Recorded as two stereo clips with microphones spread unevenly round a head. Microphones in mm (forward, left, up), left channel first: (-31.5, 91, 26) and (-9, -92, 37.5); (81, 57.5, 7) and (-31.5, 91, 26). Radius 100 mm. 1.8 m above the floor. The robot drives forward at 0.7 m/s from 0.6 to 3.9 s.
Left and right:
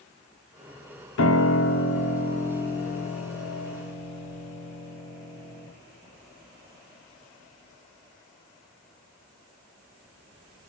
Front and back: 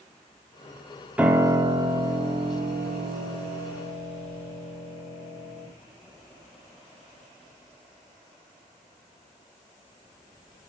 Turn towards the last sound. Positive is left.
turn(degrees=160)